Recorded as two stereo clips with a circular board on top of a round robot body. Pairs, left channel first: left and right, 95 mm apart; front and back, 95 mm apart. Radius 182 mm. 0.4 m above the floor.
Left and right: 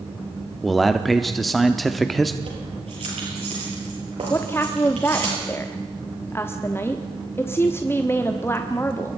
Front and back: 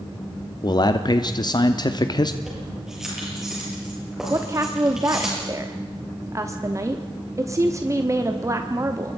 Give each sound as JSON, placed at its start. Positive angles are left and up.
{"t": 0.6, "sound": "a man speaking", "azimuth_deg": 0, "distance_m": 1.0}
{"t": 2.4, "sound": "keys jangling", "azimuth_deg": -95, "distance_m": 9.0}
{"t": 4.3, "sound": "a woman speaking", "azimuth_deg": 145, "distance_m": 1.3}